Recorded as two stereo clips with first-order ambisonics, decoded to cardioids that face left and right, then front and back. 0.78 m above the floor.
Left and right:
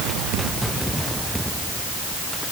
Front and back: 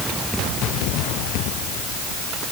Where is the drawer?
No drawer in this recording.